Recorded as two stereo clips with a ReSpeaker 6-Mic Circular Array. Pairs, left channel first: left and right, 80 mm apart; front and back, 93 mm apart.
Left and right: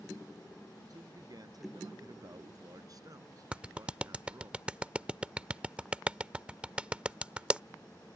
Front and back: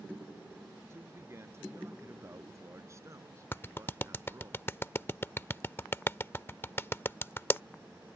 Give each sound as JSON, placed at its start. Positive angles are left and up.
{"t": 0.9, "sound": "a man speaking", "azimuth_deg": -120}
{"t": 3.5, "sound": "a clap", "azimuth_deg": -30}